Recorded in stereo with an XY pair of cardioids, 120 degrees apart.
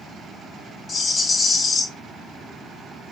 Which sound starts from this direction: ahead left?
A rattle, at 0.9 s.